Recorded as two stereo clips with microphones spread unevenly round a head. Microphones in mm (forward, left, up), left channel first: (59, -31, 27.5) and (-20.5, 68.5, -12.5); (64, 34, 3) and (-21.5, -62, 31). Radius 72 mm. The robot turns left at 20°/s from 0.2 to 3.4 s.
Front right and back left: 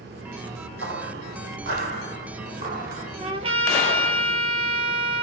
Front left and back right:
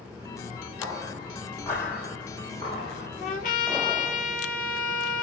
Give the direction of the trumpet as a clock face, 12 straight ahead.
9 o'clock.